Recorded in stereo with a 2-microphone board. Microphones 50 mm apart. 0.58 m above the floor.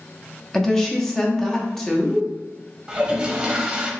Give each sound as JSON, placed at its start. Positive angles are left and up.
{"t": 0.5, "sound": "a woman speaking", "side_deg": 10, "distance_m": 0.6}
{"t": 2.9, "sound": "a toilet flushing", "side_deg": -20, "distance_m": 0.6}